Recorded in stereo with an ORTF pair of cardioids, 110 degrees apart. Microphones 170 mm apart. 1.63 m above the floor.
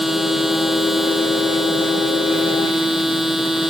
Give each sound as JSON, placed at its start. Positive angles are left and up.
{"t": 0.0, "sound": "a machine running", "azimuth_deg": 0}